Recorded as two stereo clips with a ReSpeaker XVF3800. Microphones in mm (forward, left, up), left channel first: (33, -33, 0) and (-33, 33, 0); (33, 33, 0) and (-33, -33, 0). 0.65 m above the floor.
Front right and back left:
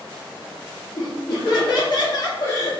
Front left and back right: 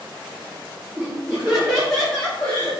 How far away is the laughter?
About 1.3 m.